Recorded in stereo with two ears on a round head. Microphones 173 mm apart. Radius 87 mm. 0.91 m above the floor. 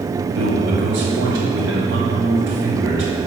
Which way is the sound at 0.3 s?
65° right (ahead or behind).